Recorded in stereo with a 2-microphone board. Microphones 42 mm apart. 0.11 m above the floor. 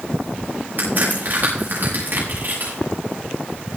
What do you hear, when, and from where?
0.8 s a crack: 50° right (ahead or behind), 6 m